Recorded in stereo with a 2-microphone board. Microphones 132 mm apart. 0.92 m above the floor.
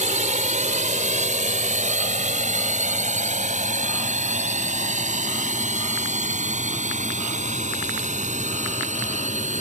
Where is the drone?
70° right (ahead or behind); by 9.6 s 65° right (ahead or behind).